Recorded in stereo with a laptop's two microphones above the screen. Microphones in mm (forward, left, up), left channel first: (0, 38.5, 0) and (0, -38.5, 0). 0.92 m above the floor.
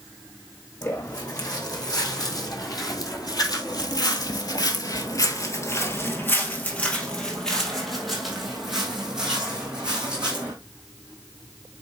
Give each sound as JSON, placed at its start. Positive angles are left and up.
{"t": 0.8, "sound": "footsteps", "side_deg": 50, "distance_m": 3.0}